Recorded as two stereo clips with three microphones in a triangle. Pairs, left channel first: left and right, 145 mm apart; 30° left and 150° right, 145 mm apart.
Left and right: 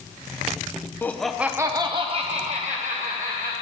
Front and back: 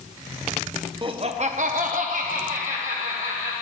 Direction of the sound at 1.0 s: 160° left.